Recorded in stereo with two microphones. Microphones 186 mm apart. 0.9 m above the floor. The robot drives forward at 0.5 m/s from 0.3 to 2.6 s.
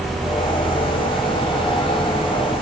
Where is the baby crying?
I don't hear a baby crying.